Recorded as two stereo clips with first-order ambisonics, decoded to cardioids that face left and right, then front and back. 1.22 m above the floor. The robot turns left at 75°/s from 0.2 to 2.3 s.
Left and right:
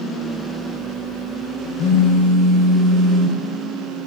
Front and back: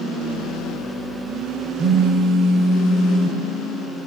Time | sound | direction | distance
1.8 | a phone buzzing | 130° left | 3.5 m